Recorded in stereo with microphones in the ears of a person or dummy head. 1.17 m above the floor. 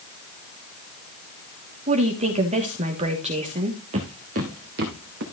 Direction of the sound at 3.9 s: 35° right (ahead or behind).